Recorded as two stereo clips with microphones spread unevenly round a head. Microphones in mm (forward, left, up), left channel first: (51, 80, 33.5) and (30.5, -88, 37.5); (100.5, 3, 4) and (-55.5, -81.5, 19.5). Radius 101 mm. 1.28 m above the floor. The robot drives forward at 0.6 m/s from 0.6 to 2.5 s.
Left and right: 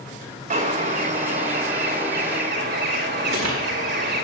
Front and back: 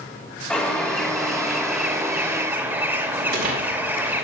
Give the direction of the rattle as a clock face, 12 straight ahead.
4 o'clock.